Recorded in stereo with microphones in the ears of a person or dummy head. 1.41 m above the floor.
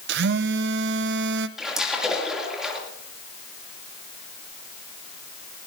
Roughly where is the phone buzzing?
Right.